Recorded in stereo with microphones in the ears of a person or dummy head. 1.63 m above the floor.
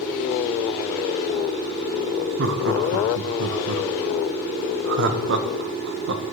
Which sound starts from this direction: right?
Laughter, at 2.4 s.